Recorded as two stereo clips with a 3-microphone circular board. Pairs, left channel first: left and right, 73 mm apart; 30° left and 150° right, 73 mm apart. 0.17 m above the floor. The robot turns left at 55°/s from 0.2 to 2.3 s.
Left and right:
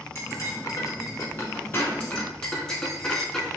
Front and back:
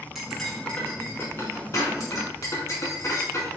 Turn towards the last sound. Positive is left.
turn(degrees=10)